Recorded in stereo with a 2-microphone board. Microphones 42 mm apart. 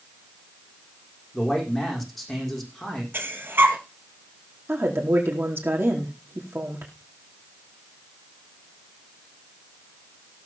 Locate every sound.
1.3 s a man speaking: 5° left (ahead or behind), 6.5 m
3.1 s breathing: 60° right (ahead or behind), 2.5 m
4.7 s a woman speaking: 75° right (ahead or behind), 4.5 m